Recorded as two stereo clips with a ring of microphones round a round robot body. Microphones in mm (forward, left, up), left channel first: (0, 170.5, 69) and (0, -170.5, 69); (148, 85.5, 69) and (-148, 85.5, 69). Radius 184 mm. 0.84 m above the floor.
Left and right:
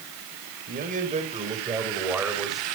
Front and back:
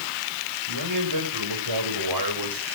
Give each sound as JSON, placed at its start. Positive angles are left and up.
{"t": 0.7, "sound": "a man speaking", "azimuth_deg": -155, "distance_m": 5.0}